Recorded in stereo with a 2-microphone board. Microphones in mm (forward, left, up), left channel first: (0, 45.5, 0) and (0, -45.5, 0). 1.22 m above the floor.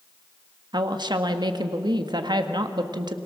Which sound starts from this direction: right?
A woman speaking, at 0.7 s.